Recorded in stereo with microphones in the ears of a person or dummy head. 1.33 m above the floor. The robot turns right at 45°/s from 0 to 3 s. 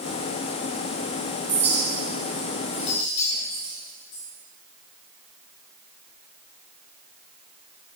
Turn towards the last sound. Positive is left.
turn(degrees=50)  # may be behind; listen again after turning